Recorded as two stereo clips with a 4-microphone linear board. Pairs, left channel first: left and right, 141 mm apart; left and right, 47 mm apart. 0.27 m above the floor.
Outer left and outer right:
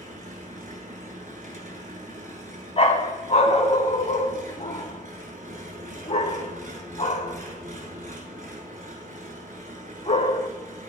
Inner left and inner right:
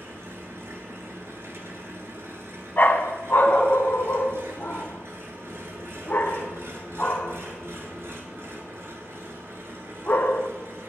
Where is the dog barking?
45° left (ahead or behind), 0.5 m.